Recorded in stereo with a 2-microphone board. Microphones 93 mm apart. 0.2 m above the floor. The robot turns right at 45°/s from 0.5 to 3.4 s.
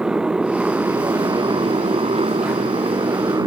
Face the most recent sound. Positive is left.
turn(degrees=-40)